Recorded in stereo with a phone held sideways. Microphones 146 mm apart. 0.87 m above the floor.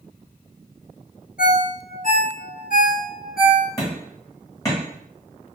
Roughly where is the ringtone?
Left.